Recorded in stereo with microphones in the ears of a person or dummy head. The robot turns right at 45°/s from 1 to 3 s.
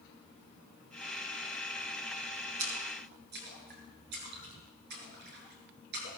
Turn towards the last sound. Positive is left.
turn(degrees=-55)  # may be behind; listen again after turning